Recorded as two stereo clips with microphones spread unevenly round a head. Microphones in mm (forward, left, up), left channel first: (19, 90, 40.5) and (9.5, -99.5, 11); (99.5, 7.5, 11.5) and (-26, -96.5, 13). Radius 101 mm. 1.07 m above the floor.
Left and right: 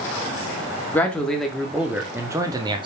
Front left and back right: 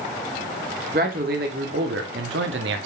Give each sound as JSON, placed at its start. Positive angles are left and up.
{"t": 0.9, "sound": "a man speaking", "azimuth_deg": 170, "distance_m": 2.0}